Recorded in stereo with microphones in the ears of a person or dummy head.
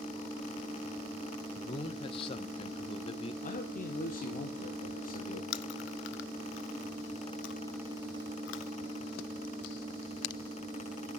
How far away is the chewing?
About 0.7 m.